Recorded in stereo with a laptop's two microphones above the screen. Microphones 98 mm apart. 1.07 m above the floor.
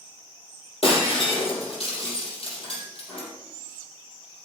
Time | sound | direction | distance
0.8 | breaking glass | 80° left | 4 m